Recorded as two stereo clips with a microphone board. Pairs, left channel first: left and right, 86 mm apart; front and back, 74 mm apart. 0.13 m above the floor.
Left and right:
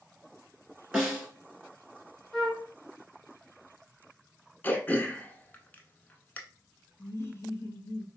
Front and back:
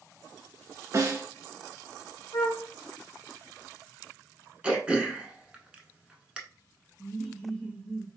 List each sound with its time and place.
0.9 s a snare drum: 165° right, 1.3 m
2.3 s a flute: 5° left, 0.9 m
4.6 s throat clearing: 125° left, 0.7 m
7.0 s laughter: 75° left, 1.2 m